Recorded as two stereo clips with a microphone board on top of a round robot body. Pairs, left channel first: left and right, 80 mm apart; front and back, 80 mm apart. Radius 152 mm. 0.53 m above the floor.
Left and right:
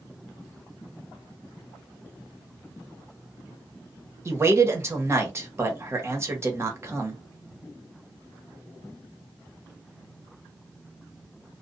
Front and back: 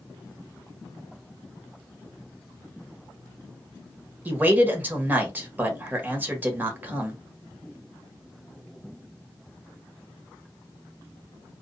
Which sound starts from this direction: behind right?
A man speaking, at 4.2 s.